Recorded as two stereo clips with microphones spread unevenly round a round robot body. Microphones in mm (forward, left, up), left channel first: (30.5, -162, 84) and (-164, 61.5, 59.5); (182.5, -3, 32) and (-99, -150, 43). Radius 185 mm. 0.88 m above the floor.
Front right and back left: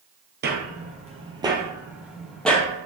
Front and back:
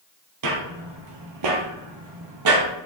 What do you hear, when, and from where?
0.4 s footsteps: 175° right, 1.5 m; by 2.7 s 130° right, 2.0 m